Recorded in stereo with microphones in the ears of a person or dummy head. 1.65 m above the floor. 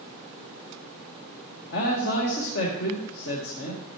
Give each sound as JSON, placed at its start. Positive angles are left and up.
{"t": 1.7, "sound": "a man speaking", "side_deg": 60, "distance_m": 1.8}